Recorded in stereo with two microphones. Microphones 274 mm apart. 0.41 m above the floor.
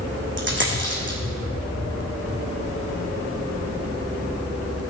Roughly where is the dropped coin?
Right.